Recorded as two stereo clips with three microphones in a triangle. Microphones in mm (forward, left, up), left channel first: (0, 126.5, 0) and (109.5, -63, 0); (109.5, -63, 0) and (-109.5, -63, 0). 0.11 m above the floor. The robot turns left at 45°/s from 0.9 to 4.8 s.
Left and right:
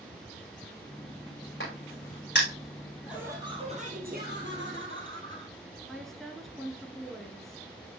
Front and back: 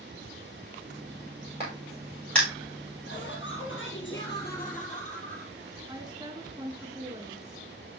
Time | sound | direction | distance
1.6 | a crack | 120° left | 7 m
3.1 | laughter | 25° left | 2.5 m
5.9 | a woman speaking | 155° right | 1.2 m